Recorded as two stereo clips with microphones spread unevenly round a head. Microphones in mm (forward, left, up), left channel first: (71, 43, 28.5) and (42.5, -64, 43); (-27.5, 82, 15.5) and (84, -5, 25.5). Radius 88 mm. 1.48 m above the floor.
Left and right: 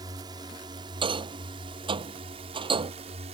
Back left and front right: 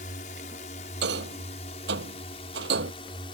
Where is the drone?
170° right; by 3.4 s 155° right.